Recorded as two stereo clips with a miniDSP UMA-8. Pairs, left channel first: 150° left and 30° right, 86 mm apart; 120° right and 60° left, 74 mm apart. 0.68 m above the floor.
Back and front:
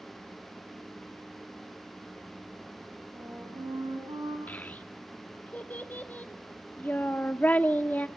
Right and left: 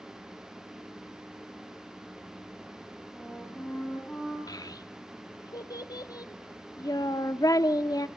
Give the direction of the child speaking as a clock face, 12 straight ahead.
5 o'clock.